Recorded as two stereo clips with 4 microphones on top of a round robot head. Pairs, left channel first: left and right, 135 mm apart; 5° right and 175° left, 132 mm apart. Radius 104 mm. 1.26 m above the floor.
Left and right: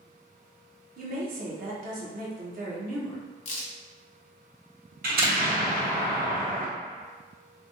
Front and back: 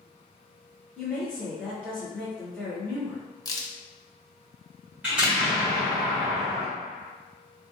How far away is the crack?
About 0.8 m.